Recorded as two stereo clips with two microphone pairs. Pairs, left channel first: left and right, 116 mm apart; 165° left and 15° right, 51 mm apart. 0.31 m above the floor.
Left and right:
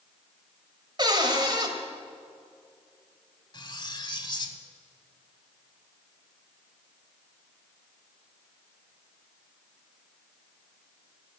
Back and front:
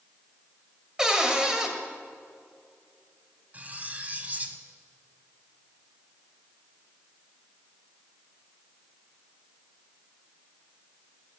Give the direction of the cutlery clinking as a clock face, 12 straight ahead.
11 o'clock.